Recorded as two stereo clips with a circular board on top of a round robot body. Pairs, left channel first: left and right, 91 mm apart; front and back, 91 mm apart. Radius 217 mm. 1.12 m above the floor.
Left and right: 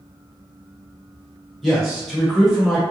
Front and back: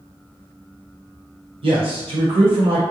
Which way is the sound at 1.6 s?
Straight behind.